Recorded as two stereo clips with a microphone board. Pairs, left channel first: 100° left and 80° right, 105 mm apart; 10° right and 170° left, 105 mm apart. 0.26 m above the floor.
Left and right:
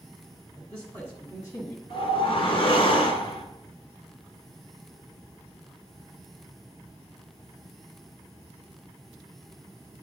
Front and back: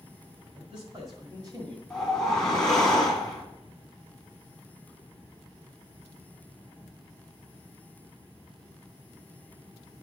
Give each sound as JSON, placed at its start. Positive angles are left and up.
{"t": 0.6, "sound": "a man speaking", "azimuth_deg": 170, "distance_m": 1.8}
{"t": 1.9, "sound": "a whoosh", "azimuth_deg": 75, "distance_m": 1.2}